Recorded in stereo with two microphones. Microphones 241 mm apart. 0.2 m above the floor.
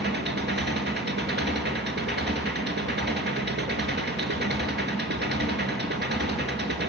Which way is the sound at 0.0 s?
45° right (ahead or behind).